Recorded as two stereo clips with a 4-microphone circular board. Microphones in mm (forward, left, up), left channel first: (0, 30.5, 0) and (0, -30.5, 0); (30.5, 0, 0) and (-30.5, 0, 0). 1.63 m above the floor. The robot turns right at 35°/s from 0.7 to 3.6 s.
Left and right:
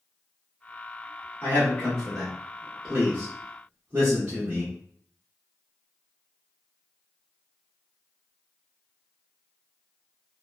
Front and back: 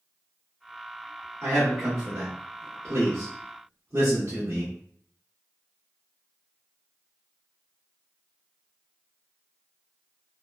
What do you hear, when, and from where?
1.4 s a man speaking: 145° left, 1.1 m; by 4.7 s 140° right, 1.1 m